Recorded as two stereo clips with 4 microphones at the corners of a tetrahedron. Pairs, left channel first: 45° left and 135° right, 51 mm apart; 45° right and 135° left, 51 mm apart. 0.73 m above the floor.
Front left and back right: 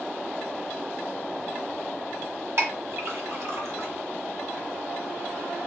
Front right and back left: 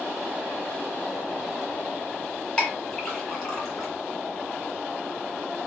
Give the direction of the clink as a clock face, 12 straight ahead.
4 o'clock.